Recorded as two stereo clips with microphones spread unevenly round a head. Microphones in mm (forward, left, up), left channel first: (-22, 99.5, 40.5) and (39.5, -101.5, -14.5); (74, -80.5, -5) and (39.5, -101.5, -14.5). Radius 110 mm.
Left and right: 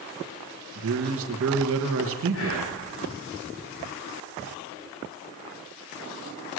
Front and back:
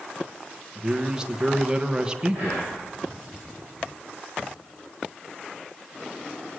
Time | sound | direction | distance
0.8 | a man speaking | 80° right | 1.3 m
2.3 | whispering | 80° left | 4 m